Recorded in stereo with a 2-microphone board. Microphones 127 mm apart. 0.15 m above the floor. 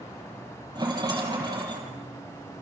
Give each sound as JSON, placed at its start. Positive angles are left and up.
{"t": 0.8, "sound": "a rattle", "side_deg": -35, "distance_m": 4.5}